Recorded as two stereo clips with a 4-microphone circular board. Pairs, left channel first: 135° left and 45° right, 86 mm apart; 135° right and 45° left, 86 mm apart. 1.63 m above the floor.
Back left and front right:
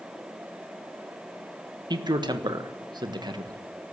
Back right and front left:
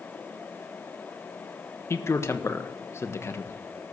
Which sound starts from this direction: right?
A man speaking, at 1.9 s.